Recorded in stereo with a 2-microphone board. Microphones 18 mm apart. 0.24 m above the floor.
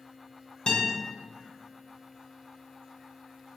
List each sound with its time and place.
0.7 s a guitar: 40° left (ahead or behind), 0.9 m